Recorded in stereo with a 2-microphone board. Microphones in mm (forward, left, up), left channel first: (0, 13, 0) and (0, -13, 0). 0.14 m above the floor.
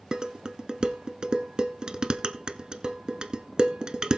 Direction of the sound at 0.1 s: 35° right (ahead or behind).